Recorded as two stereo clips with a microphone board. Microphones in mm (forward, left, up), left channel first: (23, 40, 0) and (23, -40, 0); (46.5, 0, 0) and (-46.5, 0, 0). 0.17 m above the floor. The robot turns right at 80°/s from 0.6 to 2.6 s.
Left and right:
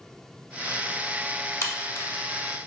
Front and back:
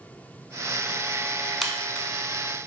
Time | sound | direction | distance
1.6 | a crack | 90° left | 0.8 m